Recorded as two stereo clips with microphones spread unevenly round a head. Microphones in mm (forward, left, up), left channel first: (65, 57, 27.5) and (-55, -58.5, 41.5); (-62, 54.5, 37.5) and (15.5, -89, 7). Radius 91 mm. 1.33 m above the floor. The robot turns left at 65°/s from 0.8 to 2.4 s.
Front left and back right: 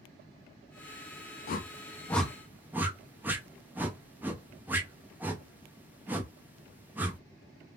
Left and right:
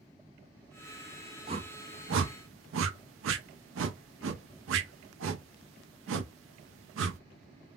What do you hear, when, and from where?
1.5 s a whoosh: 5° left, 0.5 m; by 7.2 s 55° right, 0.5 m